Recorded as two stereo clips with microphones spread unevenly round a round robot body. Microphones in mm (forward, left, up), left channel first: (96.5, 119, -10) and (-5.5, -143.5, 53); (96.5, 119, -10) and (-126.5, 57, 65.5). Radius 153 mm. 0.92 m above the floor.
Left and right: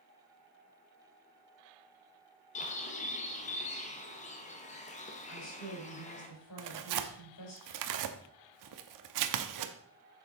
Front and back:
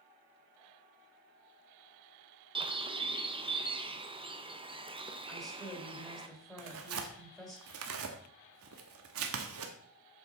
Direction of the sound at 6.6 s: 130° right.